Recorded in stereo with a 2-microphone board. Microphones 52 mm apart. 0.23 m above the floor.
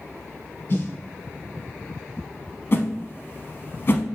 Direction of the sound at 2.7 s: 45° left (ahead or behind).